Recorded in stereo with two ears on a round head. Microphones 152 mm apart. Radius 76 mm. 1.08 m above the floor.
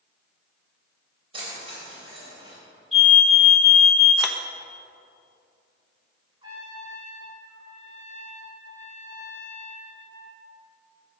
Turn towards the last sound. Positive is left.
turn(degrees=-25)  # may be behind; listen again after turning